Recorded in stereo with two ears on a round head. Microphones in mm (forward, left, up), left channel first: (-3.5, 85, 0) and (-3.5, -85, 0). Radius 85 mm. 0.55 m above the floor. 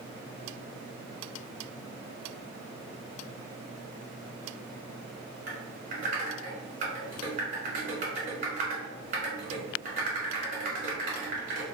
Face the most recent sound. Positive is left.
turn(degrees=-50)  # may be behind; listen again after turning